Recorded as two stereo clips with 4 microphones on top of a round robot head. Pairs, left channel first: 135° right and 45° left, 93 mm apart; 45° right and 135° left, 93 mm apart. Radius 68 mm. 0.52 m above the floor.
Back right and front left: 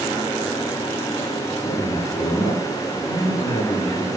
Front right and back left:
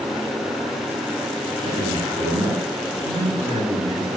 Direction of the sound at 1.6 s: 170° left.